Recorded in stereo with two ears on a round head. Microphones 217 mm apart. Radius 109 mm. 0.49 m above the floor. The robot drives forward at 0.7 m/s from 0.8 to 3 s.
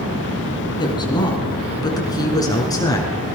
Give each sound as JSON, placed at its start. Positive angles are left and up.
{"t": 0.8, "sound": "a woman speaking", "side_deg": 20, "distance_m": 6.0}